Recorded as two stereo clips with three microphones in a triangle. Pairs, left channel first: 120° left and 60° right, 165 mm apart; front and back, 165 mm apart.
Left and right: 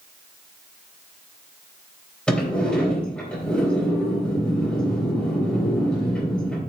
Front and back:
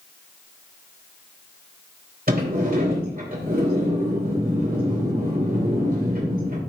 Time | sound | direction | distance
2.3 | a sliding door | 155° right | 3.5 m